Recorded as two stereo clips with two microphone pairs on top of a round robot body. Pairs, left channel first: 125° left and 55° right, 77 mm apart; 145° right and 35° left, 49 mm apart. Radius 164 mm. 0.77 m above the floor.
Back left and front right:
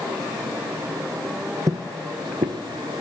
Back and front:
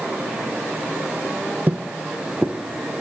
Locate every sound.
1.7 s footsteps: 25° right, 0.9 m; by 3.0 s 45° right, 2.5 m